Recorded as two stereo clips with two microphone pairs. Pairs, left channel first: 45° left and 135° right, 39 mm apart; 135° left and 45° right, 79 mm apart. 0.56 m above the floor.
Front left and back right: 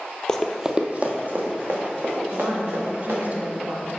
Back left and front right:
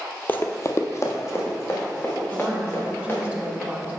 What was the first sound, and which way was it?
Running footsteps, 95° left.